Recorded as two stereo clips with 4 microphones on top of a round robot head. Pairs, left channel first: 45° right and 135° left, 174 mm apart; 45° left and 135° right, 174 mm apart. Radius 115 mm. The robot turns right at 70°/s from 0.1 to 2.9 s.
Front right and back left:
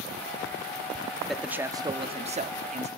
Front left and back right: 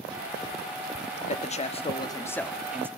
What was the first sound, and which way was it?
A man speaking, 45° left.